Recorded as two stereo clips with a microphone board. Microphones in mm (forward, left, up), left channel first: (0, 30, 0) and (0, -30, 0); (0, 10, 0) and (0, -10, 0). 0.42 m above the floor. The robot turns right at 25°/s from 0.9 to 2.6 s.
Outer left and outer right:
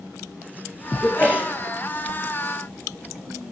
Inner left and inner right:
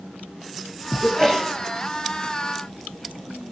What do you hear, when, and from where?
1.0 s a sneeze: 20° left (ahead or behind), 7 m; by 1.5 s 35° left (ahead or behind), 7 m